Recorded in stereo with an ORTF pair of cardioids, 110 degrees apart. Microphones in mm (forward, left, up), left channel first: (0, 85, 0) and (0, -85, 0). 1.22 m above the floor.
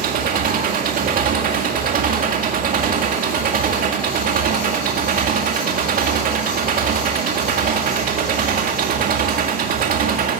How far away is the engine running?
About 2.0 m.